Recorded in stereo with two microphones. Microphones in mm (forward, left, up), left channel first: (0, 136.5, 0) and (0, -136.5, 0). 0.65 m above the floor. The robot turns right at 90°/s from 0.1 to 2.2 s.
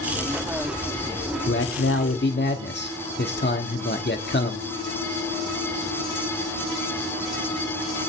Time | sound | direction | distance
1.5 | a man speaking | 60° left | 1.4 m